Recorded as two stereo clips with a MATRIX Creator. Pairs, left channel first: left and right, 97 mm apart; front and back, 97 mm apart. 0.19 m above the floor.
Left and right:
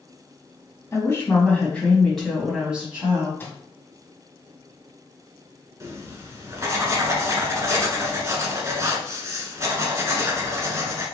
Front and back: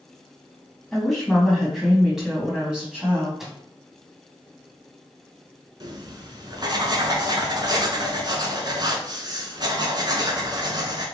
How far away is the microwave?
About 0.9 m.